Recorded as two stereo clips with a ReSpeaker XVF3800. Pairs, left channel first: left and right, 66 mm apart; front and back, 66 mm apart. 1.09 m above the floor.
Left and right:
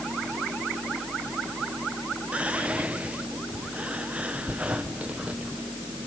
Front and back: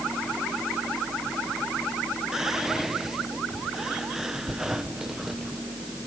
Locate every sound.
2.3 s whispering: 110° right, 0.6 m